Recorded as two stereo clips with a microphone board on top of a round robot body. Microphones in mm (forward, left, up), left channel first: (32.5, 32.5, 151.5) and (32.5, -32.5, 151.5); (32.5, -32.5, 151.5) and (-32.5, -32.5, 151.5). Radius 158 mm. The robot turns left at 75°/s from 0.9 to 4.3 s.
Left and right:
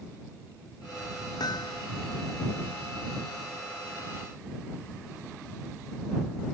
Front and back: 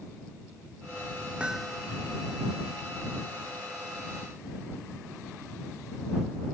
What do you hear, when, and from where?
1.4 s hammering: 105° left; by 1.8 s 75° left